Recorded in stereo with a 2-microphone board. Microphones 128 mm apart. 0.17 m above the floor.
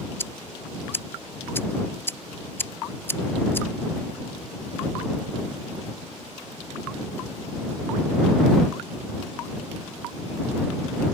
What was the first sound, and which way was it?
Ticking, 20° left (ahead or behind).